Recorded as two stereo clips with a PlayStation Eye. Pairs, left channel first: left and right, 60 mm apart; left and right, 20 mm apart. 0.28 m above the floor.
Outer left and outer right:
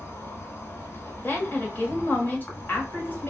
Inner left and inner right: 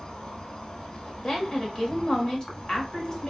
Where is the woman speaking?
30° left (ahead or behind), 1.3 m.